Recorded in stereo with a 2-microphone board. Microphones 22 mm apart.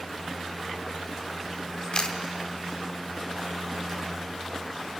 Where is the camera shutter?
45° left (ahead or behind), 1.3 m.